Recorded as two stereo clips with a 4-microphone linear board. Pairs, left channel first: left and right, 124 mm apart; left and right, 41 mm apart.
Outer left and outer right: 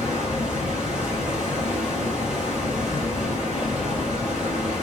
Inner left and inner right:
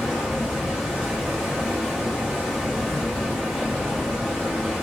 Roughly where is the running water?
Centre.